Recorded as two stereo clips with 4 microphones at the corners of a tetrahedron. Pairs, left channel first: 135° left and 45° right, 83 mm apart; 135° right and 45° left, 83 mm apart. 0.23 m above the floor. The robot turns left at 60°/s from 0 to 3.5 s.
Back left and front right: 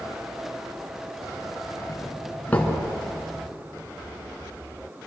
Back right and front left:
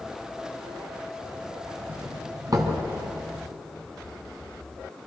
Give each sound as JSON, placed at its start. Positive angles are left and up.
{"t": 1.9, "sound": "a doorbell", "azimuth_deg": 110, "distance_m": 3.0}